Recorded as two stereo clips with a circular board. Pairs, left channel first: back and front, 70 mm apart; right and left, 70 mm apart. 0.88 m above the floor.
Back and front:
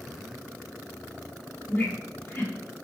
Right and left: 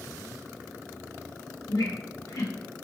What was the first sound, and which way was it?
A squeak, 120° right.